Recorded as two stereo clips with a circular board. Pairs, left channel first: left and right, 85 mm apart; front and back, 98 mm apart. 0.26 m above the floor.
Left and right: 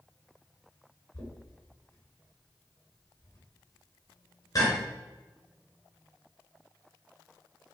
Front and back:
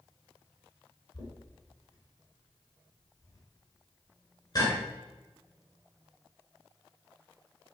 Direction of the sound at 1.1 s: 45° left.